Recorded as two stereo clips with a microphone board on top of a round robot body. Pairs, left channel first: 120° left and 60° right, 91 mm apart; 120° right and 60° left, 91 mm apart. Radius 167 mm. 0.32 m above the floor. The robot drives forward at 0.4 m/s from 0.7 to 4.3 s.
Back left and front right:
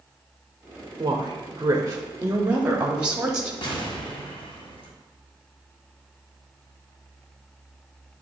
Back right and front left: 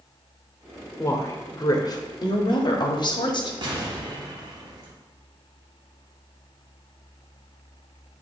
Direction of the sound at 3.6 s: 90° left.